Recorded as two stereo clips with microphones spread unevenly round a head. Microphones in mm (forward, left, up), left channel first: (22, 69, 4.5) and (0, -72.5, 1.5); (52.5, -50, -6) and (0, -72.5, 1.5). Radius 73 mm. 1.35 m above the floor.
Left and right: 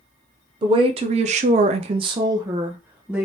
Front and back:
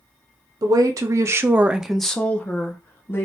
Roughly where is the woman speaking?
Behind right.